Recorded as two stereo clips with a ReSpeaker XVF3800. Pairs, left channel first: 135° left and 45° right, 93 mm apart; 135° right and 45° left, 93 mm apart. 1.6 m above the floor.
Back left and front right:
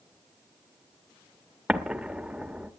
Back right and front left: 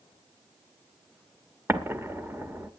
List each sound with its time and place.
1.7 s an explosion: 25° left, 1.3 m